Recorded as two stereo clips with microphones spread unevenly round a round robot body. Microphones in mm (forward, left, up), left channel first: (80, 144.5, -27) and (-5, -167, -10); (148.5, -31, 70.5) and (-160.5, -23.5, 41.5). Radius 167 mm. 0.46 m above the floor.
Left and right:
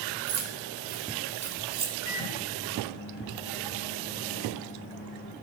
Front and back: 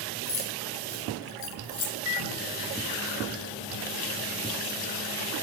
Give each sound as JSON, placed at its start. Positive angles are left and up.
{"t": 0.3, "sound": "keys jangling", "azimuth_deg": -60, "distance_m": 2.0}
{"t": 2.0, "sound": "a microwave", "azimuth_deg": 25, "distance_m": 2.5}